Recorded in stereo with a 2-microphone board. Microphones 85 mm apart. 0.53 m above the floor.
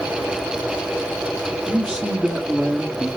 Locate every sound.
1.7 s a man speaking: 15° right (ahead or behind), 1.3 m